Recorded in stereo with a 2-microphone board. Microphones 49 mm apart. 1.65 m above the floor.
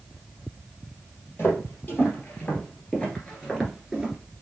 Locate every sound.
1.4 s footsteps: 45° left (ahead or behind), 2.5 m; by 4.2 s 10° right (ahead or behind), 1.6 m